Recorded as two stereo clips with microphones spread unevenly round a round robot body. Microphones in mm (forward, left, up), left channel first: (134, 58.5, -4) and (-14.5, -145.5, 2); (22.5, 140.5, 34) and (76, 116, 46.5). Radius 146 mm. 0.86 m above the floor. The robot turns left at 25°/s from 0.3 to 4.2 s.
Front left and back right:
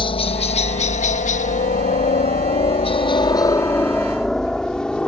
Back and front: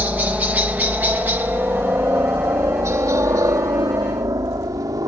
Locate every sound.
0.0 s a helicopter: 15° left; by 5.1 s 30° right